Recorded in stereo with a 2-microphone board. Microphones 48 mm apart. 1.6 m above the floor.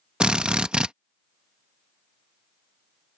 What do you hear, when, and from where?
0.2 s a drill: 20° right (ahead or behind)